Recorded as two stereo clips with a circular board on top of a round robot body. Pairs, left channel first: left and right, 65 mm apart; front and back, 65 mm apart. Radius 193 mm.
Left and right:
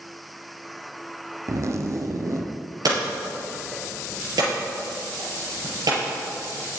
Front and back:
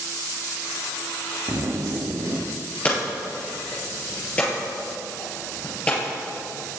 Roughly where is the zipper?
Behind right.